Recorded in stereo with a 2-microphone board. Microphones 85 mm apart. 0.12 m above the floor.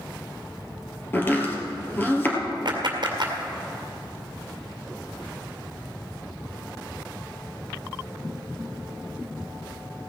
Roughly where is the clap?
Right.